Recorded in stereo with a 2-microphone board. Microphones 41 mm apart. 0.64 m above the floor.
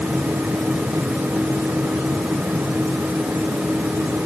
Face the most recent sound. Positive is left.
No sound to turn to.